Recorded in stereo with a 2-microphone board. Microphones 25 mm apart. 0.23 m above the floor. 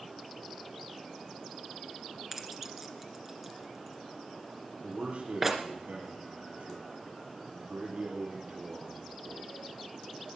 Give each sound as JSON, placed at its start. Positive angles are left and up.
{"t": 2.3, "sound": "keys jangling", "side_deg": -15, "distance_m": 2.5}
{"t": 4.8, "sound": "a man speaking", "side_deg": -50, "distance_m": 5.5}